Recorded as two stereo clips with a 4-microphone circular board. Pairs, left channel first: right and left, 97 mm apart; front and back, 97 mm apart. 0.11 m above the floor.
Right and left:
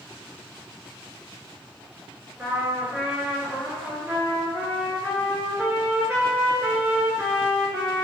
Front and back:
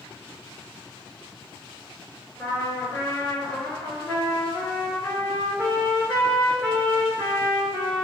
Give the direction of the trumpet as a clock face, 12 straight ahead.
11 o'clock.